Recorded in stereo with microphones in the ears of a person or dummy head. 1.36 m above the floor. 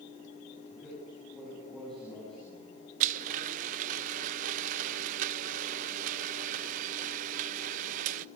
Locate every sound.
0.7 s a man speaking: 10° right (ahead or behind), 9.5 m
3.0 s a blender: 40° right (ahead or behind), 0.7 m